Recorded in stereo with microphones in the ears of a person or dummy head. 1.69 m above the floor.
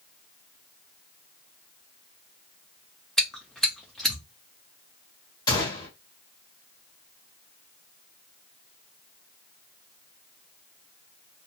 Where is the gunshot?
25° left (ahead or behind), 1.2 m.